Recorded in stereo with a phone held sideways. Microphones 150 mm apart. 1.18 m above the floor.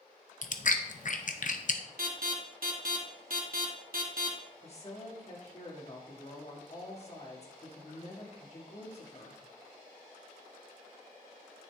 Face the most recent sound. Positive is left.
turn(degrees=45)  # may be behind; listen again after turning